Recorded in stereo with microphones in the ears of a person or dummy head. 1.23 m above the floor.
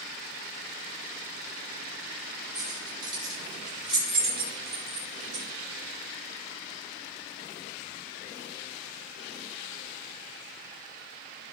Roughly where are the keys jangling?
Right.